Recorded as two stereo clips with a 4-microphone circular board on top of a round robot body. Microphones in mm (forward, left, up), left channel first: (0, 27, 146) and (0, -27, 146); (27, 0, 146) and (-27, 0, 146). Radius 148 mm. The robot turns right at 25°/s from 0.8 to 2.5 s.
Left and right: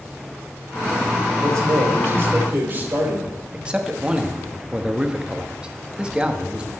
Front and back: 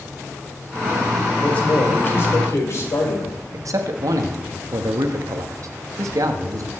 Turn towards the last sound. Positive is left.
turn(degrees=-165)